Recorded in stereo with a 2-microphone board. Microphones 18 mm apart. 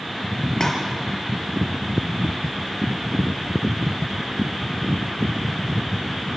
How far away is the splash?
About 4.5 m.